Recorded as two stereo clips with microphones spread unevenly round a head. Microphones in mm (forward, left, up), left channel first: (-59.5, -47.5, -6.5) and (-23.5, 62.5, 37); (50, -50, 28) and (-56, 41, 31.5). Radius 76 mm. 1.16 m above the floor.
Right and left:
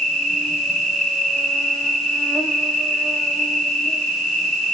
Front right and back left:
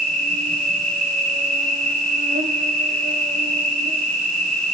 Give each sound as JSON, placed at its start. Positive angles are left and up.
{"t": 0.0, "sound": "an insect", "azimuth_deg": 170, "distance_m": 3.5}